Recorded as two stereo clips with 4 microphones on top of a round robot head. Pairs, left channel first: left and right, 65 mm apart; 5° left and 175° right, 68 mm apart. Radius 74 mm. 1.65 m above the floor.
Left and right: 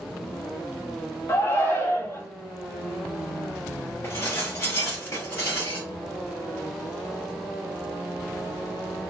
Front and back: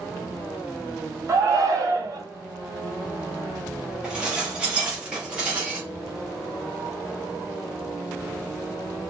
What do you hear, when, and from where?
1.3 s a shout: 145° left, 1.3 m
4.0 s dishes clattering: 115° left, 0.7 m